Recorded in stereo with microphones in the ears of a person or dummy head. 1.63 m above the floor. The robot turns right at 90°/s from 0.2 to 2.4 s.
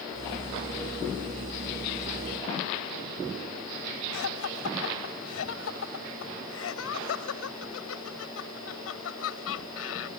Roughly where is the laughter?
Left.